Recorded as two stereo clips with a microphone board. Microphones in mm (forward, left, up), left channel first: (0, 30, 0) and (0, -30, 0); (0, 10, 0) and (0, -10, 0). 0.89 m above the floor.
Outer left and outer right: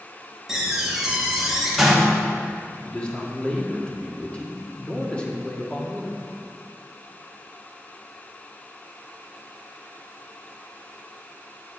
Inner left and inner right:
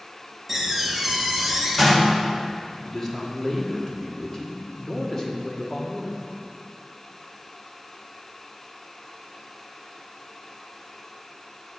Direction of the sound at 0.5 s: 10° right (ahead or behind).